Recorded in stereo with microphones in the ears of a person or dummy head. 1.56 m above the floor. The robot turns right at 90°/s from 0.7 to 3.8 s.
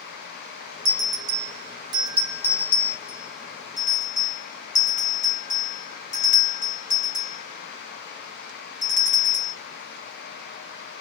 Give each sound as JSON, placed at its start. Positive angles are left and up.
{"t": 0.8, "sound": "a bell", "side_deg": -45, "distance_m": 0.7}